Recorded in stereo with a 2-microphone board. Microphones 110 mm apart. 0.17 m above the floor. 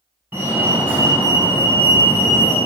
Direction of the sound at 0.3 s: 20° right (ahead or behind).